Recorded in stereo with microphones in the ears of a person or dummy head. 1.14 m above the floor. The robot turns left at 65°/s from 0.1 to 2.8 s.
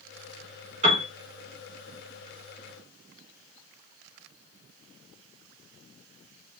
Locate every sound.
0.8 s a piano: 40° right (ahead or behind), 2 m; by 1.1 s 25° right (ahead or behind), 2 m